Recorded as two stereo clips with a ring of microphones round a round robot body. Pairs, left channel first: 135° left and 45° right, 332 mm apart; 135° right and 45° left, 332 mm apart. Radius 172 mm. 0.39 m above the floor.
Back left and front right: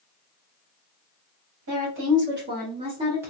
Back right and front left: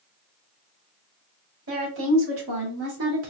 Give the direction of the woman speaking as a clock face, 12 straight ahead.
12 o'clock.